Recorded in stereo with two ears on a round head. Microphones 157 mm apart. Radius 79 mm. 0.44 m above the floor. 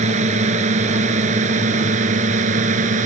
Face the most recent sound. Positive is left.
turn(degrees=-45)  # may be behind; listen again after turning